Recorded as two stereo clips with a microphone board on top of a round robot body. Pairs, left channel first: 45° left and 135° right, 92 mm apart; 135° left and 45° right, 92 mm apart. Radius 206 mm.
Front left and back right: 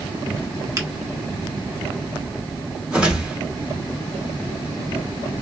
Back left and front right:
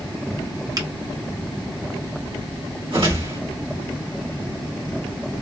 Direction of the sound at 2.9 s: 55° right.